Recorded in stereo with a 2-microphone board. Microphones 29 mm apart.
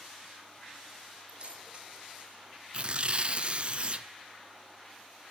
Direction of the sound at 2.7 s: 40° right (ahead or behind).